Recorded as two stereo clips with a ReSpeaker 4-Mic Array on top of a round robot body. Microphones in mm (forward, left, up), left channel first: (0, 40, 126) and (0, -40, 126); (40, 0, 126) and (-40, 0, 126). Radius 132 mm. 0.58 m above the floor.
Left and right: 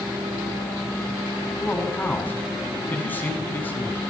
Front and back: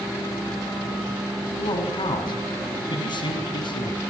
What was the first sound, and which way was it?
A man speaking, 20° left.